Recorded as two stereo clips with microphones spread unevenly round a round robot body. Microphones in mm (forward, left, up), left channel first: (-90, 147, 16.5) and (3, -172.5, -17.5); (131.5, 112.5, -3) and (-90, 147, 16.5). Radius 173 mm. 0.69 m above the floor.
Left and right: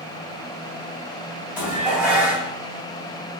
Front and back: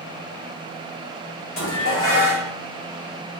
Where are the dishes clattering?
15° left, 2.5 m.